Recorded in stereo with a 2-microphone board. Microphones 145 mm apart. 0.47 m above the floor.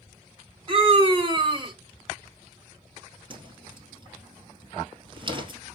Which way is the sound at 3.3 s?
35° right (ahead or behind).